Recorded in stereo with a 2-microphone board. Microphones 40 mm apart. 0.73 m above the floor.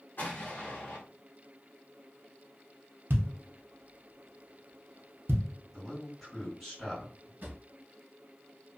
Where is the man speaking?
10° left (ahead or behind), 1.8 m.